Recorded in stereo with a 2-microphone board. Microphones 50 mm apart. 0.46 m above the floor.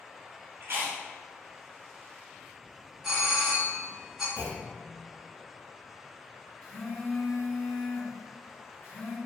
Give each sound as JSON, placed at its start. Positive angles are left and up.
{"t": 0.6, "sound": "chewing", "side_deg": -55, "distance_m": 1.0}
{"t": 3.0, "sound": "a doorbell", "side_deg": -10, "distance_m": 1.6}
{"t": 4.4, "sound": "a clunk", "side_deg": 65, "distance_m": 1.5}
{"t": 6.6, "sound": "a phone buzzing", "side_deg": 45, "distance_m": 1.7}